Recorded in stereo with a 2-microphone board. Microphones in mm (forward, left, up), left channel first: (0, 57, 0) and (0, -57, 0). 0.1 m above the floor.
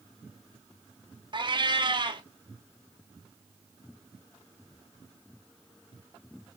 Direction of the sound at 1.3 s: 40° right (ahead or behind).